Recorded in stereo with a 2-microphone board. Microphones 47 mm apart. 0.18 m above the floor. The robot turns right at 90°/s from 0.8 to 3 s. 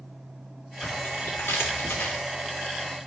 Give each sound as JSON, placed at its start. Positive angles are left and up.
{"t": 0.8, "sound": "tearing paper", "azimuth_deg": 15, "distance_m": 2.5}